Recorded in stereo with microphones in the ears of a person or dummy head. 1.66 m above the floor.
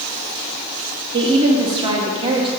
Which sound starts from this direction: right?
A woman speaking, at 1.1 s.